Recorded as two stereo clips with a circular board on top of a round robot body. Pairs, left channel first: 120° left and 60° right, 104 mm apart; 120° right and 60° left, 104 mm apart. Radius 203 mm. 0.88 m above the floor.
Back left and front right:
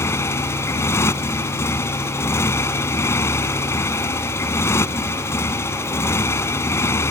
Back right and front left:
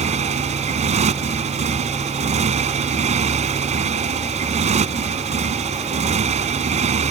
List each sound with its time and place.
0.0 s a motorcycle: 50° left